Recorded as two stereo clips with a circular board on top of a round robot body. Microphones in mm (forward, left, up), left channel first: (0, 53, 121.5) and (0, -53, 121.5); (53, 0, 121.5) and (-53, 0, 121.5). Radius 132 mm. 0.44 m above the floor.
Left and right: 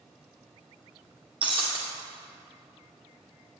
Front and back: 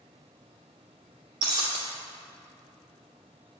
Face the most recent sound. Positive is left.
turn(degrees=-130)